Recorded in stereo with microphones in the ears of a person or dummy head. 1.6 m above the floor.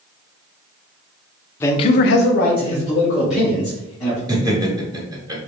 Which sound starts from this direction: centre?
A man speaking, at 1.6 s.